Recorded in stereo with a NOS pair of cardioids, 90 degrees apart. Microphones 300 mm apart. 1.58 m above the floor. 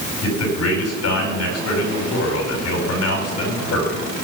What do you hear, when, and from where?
0.2 s a man speaking: 60° left, 8 m